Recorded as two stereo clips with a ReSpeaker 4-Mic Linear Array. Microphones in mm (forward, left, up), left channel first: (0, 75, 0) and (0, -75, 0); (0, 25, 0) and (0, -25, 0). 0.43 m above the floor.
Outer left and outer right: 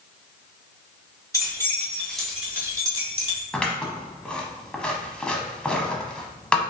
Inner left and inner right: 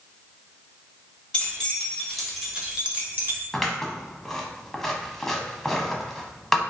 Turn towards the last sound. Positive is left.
turn(degrees=5)  # may be behind; listen again after turning